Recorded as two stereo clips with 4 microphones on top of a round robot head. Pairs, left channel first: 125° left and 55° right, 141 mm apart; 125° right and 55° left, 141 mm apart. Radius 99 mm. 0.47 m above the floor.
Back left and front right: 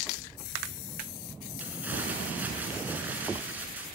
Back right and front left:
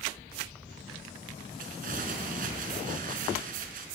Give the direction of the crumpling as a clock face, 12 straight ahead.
11 o'clock.